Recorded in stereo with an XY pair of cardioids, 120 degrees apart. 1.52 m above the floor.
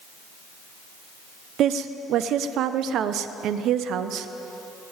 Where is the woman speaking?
65° right, 0.9 m.